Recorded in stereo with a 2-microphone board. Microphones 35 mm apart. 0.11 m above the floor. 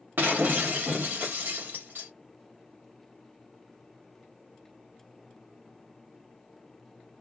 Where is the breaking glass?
70° right (ahead or behind), 1.0 m.